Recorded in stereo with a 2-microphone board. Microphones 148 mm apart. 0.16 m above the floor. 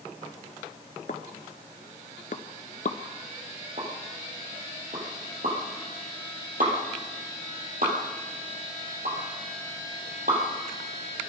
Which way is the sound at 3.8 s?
75° right (ahead or behind).